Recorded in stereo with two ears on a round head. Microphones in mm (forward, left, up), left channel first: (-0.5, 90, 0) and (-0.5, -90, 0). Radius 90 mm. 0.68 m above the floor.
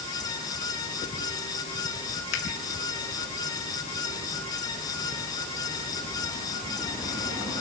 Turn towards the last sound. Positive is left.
turn(degrees=80)